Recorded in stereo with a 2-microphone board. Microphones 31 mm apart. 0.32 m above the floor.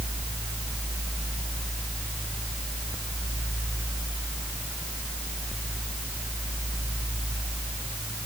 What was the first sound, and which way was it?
Only background noise.